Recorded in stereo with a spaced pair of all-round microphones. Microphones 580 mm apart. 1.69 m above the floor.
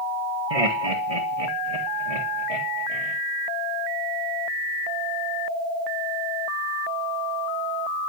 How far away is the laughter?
About 2.5 m.